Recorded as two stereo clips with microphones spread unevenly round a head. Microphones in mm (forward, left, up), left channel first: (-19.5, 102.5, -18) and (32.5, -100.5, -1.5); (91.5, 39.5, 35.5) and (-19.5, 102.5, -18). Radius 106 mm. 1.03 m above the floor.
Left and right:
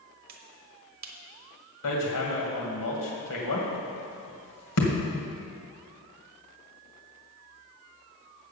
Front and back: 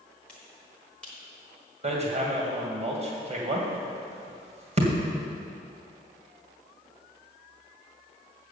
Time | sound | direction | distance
0.3 | a finger snap | 125° right | 1.1 m
1.8 | hammering | 110° left | 2 m